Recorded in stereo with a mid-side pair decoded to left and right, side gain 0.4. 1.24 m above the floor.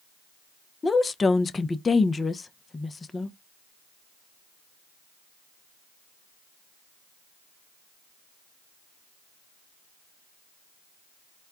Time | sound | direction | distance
0.8 | a woman speaking | 35° left | 0.7 m